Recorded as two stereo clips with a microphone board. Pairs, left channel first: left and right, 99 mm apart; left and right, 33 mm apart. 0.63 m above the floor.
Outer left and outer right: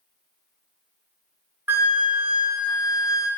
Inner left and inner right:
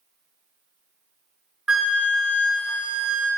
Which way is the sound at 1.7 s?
20° right (ahead or behind).